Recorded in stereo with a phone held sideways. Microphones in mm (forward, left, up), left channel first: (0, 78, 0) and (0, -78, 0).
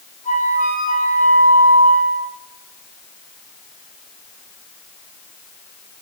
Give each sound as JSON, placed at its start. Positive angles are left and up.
{"t": 0.2, "sound": "a flute", "side_deg": 55, "distance_m": 4.0}